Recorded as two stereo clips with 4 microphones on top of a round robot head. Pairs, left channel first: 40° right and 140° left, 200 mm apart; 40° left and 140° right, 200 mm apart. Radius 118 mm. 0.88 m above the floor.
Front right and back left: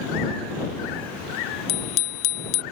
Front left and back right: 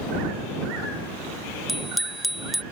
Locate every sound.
1.7 s a bicycle bell: 50° right